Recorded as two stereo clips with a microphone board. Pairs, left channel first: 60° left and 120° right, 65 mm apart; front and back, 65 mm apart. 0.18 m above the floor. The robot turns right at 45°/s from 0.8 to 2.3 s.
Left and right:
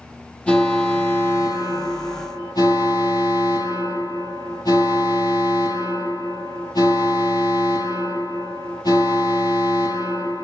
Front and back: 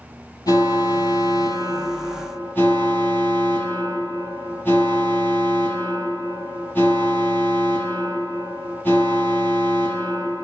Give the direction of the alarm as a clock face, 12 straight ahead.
12 o'clock.